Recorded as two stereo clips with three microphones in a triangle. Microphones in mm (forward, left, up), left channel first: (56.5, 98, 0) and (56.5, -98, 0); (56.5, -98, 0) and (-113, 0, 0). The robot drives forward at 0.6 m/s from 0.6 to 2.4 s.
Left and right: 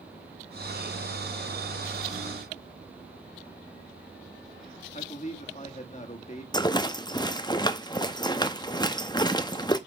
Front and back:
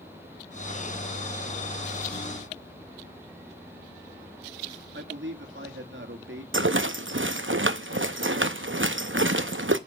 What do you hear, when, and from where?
4.9 s a man speaking: 145° left, 1.7 m
6.5 s a rattle: 155° left, 0.8 m